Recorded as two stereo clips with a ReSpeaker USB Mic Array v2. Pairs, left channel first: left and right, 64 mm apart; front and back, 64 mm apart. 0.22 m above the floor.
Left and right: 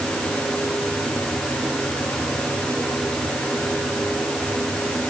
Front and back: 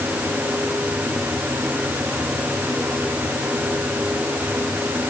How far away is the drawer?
I don't hear a drawer.